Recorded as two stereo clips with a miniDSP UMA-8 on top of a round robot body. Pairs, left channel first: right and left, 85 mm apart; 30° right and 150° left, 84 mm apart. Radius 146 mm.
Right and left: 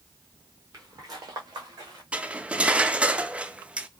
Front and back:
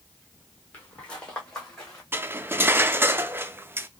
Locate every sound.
0.7 s footsteps: 45° left, 0.9 m; by 2.0 s 55° left, 1.9 m
2.1 s cutlery clinking: 145° left, 0.6 m